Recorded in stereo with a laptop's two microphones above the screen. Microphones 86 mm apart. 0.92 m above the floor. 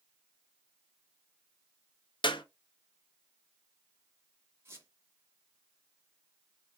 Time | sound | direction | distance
2.2 | a clap | 70° left (ahead or behind) | 0.6 m
4.7 | a squeak | 30° right (ahead or behind) | 0.9 m